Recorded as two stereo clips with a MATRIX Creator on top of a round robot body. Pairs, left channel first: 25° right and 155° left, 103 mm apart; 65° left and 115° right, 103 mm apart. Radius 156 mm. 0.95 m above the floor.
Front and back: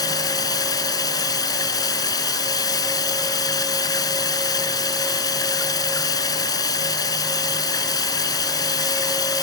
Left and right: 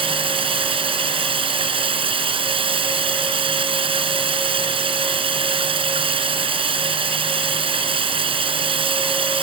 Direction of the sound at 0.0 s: 75° right.